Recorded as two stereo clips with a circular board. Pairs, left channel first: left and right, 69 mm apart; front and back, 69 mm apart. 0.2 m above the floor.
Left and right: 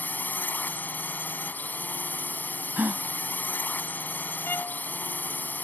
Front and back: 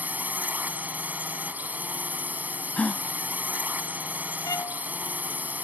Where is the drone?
130° left.